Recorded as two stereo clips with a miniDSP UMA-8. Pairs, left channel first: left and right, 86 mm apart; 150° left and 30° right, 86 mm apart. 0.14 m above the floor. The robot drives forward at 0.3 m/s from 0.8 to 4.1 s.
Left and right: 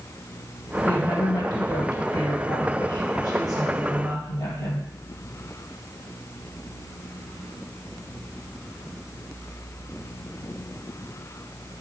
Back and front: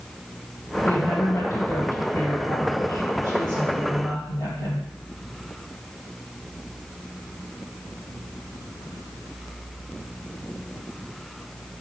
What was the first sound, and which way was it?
A woman speaking, 115° left.